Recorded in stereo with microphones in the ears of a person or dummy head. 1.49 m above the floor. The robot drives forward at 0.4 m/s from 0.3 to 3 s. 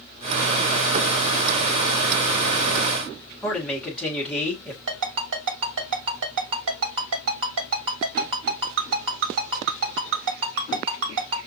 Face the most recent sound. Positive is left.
turn(degrees=-60)  # may be behind; listen again after turning